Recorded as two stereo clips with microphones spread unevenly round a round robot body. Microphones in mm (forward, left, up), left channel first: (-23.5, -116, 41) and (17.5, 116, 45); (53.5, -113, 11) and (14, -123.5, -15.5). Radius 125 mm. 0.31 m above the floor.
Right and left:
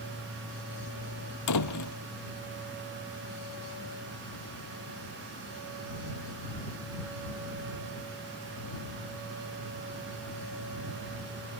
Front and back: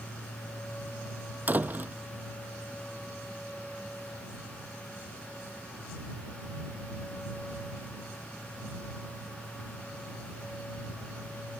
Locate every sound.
1.5 s a door slam: 115° right